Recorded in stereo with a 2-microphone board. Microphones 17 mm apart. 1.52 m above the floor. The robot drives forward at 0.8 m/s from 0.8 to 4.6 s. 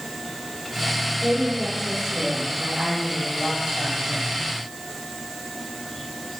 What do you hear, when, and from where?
1.2 s a woman speaking: 40° right (ahead or behind), 5.5 m; by 4.3 s 25° right (ahead or behind), 7.5 m